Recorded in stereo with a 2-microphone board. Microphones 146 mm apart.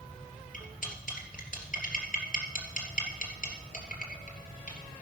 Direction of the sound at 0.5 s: 70° left (ahead or behind).